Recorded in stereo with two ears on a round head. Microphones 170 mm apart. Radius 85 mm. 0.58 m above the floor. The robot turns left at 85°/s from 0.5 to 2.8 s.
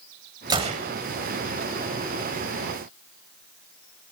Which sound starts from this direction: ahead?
A gunshot, at 0.5 s.